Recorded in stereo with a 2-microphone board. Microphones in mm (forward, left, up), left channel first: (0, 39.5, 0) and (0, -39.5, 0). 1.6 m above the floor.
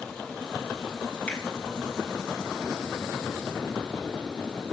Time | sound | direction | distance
1.3 | a finger snap | 15° left (ahead or behind) | 2 m